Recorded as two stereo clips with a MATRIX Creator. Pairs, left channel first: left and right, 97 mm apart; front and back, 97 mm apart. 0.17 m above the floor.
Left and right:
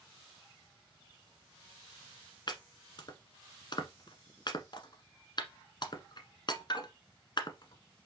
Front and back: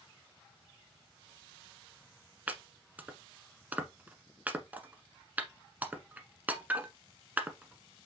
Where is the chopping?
110° left, 1.2 m.